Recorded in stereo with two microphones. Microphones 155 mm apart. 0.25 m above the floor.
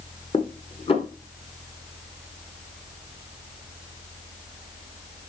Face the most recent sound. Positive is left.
turn(degrees=40)  # may be behind; listen again after turning